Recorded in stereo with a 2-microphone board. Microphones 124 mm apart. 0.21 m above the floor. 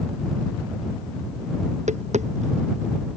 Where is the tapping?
75° right (ahead or behind).